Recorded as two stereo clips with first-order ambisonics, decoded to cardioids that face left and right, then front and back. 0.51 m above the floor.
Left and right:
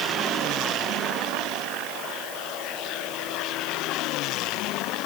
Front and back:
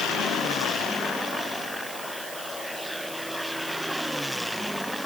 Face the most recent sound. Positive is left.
No sound to turn to.